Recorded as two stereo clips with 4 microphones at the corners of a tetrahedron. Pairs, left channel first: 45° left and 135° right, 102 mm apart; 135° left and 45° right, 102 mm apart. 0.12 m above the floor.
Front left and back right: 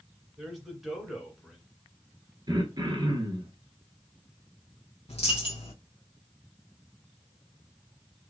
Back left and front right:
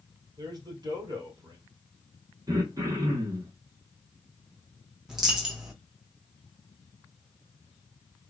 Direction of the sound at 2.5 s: 95° right.